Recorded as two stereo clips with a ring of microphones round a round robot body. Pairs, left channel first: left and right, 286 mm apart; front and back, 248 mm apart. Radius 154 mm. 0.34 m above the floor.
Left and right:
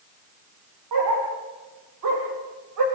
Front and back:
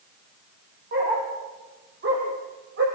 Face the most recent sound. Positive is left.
turn(degrees=-125)